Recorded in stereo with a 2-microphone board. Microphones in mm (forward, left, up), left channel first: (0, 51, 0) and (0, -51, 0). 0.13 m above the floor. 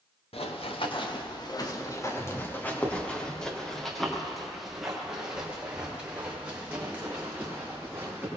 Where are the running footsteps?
70° left (ahead or behind), 2.5 m; by 8.3 s 15° right (ahead or behind), 8 m.